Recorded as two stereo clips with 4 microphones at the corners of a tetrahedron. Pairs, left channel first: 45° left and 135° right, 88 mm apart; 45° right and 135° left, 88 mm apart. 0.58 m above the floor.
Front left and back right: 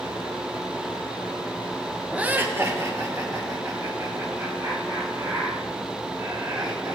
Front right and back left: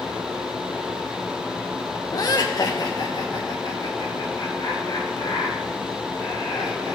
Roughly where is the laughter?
Ahead right.